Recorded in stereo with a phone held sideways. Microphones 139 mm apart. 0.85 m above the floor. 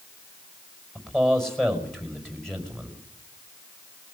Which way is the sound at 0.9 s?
Centre (ahead or behind).